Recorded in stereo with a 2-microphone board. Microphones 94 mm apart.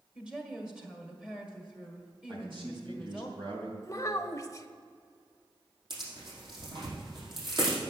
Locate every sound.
0.1 s a woman speaking: 10° right (ahead or behind), 1.6 m
2.3 s a man speaking: 65° right (ahead or behind), 3.5 m
3.8 s a child speaking: 35° left (ahead or behind), 0.7 m
5.9 s tearing paper: 55° right (ahead or behind), 4.5 m